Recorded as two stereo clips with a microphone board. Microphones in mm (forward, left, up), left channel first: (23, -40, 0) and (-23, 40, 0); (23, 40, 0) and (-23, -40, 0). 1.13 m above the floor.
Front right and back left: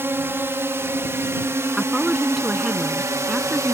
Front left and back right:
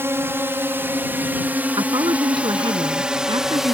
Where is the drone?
Straight behind; by 3.8 s 155° left.